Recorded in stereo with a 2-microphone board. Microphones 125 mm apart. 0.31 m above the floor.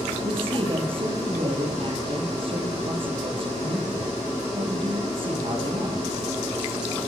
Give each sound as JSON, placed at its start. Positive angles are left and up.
{"t": 0.2, "sound": "a man speaking", "side_deg": -45, "distance_m": 9.5}